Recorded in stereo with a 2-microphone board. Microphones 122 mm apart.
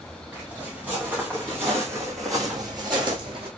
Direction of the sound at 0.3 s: 10° right (ahead or behind).